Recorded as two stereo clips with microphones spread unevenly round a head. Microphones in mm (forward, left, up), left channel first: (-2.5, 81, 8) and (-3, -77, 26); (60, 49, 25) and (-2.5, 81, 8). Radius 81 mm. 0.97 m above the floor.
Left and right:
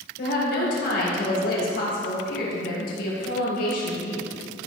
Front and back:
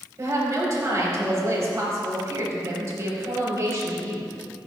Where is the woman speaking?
115° left, 4.5 m.